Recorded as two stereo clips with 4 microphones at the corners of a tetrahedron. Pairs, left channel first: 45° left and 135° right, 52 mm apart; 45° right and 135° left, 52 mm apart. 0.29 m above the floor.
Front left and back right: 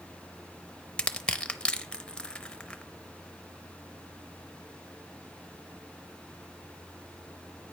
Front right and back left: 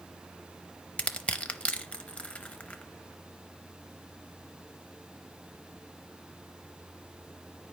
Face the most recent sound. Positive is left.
turn(degrees=-5)